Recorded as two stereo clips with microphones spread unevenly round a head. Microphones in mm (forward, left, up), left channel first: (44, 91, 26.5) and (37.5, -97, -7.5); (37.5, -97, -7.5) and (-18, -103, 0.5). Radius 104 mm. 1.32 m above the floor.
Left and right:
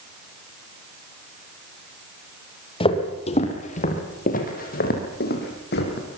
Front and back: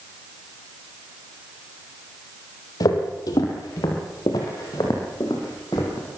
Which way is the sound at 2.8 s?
35° left.